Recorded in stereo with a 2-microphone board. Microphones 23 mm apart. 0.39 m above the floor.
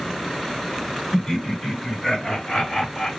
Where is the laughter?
25° left (ahead or behind), 1.4 m; by 3.1 s 50° left (ahead or behind), 2.0 m.